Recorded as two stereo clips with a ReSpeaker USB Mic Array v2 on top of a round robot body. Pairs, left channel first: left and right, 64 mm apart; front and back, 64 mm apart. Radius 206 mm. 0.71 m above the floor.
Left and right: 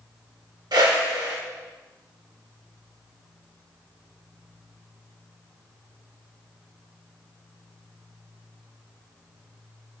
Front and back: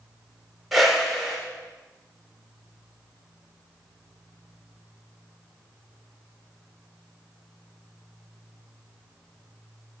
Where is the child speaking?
No child speaking in this recording.